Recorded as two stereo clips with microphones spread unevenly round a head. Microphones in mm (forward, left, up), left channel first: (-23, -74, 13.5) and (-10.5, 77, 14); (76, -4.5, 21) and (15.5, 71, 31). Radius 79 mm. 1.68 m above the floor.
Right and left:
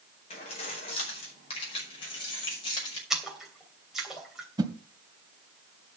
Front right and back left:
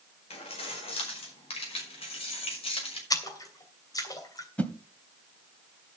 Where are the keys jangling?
40° right, 5 m; by 3.0 s 30° right, 6 m.